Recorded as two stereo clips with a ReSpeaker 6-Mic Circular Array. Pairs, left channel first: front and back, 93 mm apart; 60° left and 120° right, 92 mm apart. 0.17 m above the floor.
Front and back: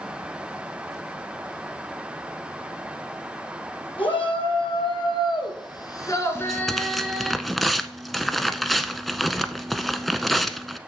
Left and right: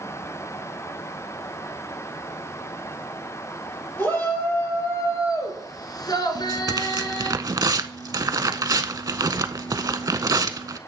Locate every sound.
4.0 s a shout: 5° right, 4 m; by 7.3 s 105° left, 2.0 m
6.3 s tearing paper: 85° right, 0.5 m